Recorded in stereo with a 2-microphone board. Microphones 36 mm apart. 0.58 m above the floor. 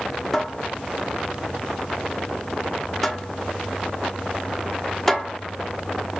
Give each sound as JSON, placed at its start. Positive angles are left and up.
{"t": 0.3, "sound": "a cupboard door", "side_deg": 5, "distance_m": 1.1}